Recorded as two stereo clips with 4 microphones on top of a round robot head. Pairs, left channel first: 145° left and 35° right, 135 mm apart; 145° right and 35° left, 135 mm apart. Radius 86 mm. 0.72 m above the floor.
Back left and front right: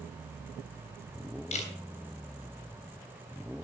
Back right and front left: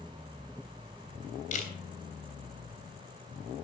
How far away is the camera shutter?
About 3 m.